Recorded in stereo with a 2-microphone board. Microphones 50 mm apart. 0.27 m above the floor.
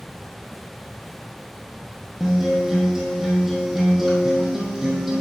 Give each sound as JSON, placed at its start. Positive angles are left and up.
{"t": 2.2, "sound": "a guitar", "side_deg": -5, "distance_m": 1.7}